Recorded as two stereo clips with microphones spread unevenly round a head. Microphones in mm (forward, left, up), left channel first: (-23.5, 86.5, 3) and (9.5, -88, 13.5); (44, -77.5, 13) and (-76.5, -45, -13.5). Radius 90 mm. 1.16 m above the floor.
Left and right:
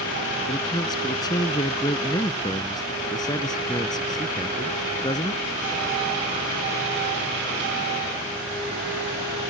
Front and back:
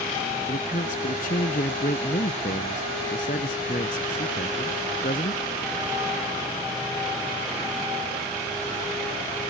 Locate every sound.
0.5 s a man speaking: 30° left